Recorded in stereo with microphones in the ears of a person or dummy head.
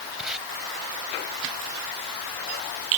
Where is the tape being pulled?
5° right (ahead or behind).